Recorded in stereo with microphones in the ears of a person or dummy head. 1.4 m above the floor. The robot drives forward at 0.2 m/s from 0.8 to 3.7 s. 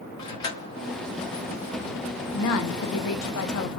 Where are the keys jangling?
20° left (ahead or behind), 1.0 m.